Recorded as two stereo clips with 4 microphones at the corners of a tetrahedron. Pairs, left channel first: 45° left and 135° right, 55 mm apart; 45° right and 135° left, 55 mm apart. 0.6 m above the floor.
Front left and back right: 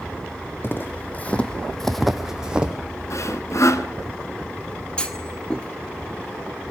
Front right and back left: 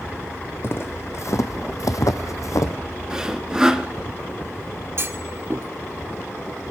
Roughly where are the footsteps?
Ahead.